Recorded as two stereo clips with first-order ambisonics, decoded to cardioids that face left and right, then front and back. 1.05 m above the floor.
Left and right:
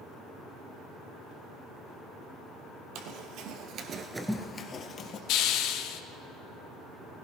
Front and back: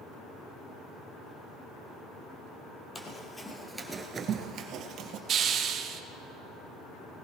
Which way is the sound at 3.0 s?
70° right.